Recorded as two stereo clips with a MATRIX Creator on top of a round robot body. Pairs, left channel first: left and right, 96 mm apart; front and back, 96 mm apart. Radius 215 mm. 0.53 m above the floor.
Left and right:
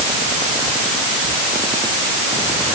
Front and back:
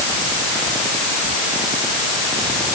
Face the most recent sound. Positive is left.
No sound to turn to.